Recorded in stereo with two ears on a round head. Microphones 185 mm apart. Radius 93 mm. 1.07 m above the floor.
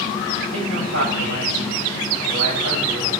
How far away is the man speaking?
About 7 m.